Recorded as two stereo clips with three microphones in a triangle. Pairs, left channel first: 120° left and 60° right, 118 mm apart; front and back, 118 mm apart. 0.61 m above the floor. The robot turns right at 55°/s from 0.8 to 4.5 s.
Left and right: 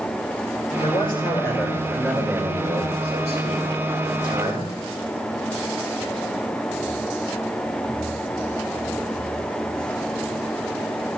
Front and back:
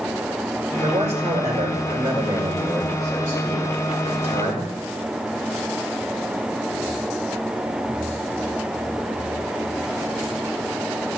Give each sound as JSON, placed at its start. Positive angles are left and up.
{"t": 0.8, "sound": "a man speaking", "azimuth_deg": 155, "distance_m": 6.5}